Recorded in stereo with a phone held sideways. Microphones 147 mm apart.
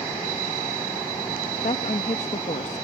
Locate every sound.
1.6 s a woman speaking: 55° left (ahead or behind)